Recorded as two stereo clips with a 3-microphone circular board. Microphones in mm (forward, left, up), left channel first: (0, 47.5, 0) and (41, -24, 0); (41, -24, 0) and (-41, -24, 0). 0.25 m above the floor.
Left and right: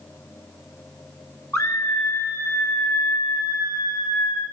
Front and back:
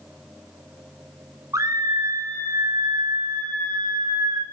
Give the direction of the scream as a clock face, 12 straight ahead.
7 o'clock.